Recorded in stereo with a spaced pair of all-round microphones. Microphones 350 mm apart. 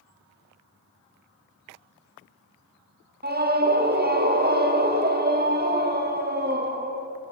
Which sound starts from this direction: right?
A scream, at 3.2 s.